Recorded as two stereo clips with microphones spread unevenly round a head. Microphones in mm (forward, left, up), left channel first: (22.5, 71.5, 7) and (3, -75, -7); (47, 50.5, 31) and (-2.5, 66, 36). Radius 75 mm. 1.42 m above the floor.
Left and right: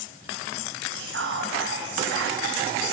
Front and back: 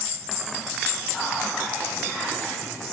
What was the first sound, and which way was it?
Whispering, 105° right.